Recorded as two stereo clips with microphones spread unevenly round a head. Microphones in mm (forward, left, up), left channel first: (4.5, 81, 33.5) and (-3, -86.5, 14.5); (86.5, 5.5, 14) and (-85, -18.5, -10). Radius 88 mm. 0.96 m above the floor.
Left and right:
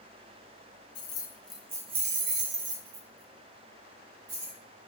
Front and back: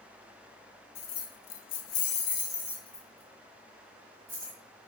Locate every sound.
0.9 s keys jangling: 25° left, 0.7 m; by 4.6 s 95° right, 1.8 m